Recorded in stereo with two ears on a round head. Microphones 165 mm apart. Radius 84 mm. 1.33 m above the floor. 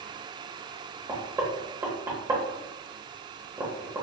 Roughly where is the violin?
I don't hear a violin.